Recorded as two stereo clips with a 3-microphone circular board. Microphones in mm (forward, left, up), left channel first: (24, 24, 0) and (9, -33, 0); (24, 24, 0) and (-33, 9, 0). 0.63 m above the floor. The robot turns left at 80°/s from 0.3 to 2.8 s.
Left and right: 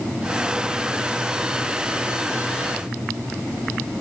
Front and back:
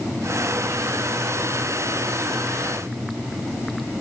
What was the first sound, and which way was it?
Only background noise.